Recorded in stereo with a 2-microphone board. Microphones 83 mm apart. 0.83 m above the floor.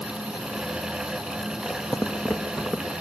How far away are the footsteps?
About 1.4 m.